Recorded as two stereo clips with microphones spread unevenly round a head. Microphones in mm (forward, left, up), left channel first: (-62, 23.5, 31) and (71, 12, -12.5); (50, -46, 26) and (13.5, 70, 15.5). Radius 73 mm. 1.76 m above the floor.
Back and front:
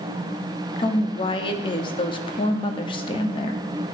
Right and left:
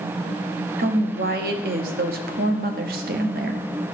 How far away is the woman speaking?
About 0.9 m.